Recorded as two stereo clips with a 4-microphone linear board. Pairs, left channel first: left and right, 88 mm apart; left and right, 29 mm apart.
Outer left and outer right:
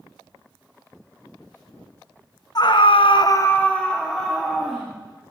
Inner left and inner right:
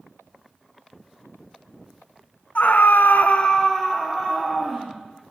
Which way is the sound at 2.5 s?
50° left (ahead or behind).